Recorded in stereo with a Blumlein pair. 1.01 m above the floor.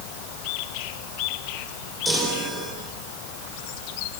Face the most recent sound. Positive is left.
turn(degrees=-5)